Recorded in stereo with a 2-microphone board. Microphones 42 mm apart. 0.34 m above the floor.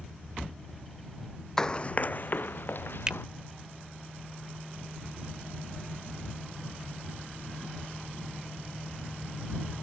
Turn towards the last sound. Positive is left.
turn(degrees=-15)  # may be behind; listen again after turning